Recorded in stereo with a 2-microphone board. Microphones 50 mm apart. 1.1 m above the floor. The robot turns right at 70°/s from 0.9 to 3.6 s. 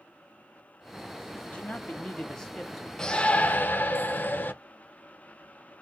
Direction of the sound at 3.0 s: 15° left.